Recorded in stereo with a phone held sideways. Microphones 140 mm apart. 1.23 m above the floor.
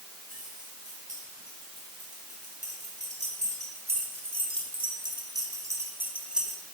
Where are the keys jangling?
65° right (ahead or behind), 6 m; by 6.6 s centre (ahead or behind), 2 m.